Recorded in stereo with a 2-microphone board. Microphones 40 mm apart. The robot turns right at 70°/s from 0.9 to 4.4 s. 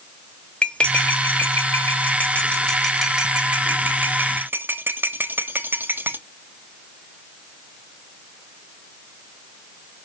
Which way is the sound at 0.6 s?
25° left (ahead or behind).